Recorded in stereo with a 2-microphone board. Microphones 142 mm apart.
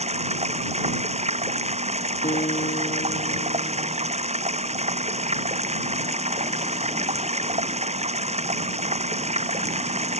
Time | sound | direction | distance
0.0 | running water | 45° right (ahead or behind) | ?
2.2 | a guitar | 70° left (ahead or behind) | ?